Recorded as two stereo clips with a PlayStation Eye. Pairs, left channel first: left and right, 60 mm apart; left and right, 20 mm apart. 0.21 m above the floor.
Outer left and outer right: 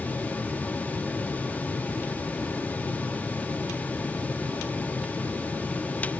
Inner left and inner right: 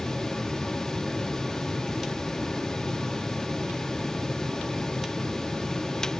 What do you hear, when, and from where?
Only background noise.